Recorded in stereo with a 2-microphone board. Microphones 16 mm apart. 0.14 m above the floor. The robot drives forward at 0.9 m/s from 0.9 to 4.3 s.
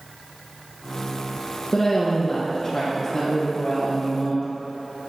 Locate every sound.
1.7 s a woman speaking: 25° left (ahead or behind), 1.5 m; by 4.4 s 10° left (ahead or behind), 3.5 m